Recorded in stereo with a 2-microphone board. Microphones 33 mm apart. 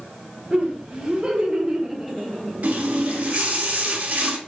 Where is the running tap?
60° right (ahead or behind), 1.4 m.